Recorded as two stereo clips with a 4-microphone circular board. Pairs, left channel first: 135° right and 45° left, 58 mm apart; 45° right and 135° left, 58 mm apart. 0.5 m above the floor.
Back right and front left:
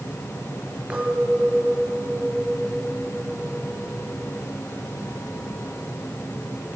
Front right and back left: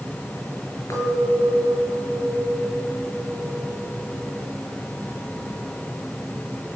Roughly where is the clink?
Ahead right.